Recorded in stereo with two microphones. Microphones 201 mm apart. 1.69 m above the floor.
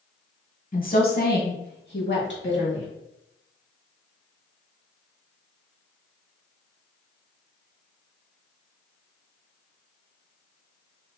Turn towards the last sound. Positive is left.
turn(degrees=65)  # may be behind; listen again after turning